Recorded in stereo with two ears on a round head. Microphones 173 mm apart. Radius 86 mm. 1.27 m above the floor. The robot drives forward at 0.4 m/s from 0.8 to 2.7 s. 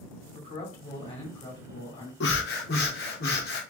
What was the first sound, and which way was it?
A man speaking, 30° left (ahead or behind).